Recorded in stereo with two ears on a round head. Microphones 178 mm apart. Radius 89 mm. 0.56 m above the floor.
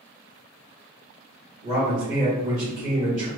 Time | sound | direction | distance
1.6 | a man speaking | 35° right (ahead or behind) | 1.3 m